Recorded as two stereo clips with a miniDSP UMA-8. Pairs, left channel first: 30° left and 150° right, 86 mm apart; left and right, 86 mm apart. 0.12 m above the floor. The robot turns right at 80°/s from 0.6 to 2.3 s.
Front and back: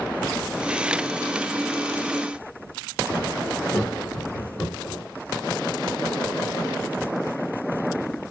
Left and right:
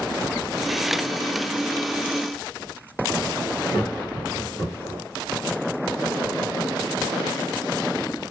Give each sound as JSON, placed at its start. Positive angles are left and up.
{"t": 3.7, "sound": "laughter", "azimuth_deg": 65, "distance_m": 1.8}